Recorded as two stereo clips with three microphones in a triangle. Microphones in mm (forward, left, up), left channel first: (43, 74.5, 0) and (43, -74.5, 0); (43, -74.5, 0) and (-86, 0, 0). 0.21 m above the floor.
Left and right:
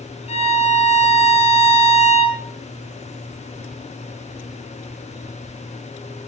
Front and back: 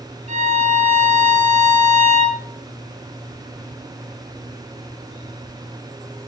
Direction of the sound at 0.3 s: 125° left.